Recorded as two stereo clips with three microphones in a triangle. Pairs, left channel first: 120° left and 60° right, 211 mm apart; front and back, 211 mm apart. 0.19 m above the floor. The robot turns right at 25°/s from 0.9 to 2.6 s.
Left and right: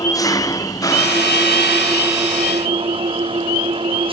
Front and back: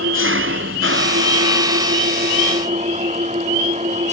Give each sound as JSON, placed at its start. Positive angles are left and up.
{"t": 0.0, "sound": "an engine running", "azimuth_deg": -165}